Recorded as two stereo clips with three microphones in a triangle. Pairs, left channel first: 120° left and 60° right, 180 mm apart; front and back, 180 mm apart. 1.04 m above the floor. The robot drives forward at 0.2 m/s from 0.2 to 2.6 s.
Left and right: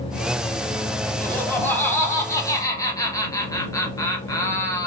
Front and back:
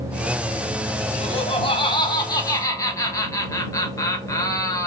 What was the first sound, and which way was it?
Laughter, 40° left.